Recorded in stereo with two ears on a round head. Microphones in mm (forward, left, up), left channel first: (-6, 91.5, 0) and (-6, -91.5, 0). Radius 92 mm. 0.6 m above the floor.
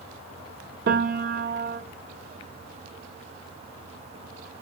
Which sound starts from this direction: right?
A piano, at 0.9 s.